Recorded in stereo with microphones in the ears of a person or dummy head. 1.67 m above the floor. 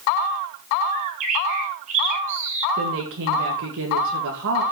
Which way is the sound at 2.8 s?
70° right (ahead or behind).